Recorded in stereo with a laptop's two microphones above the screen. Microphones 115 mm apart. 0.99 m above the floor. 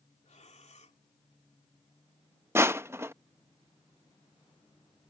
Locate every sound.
0.2 s breathing: 70° left (ahead or behind)
2.5 s crushing: 20° right (ahead or behind)